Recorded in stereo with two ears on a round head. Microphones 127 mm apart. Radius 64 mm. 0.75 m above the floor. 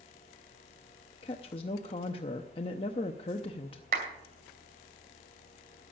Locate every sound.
1.2 s a woman speaking: 40° left (ahead or behind), 0.7 m
3.9 s a clap: 65° right (ahead or behind), 2.5 m